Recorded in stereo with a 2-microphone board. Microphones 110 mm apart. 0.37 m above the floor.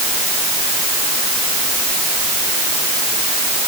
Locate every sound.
Only background noise.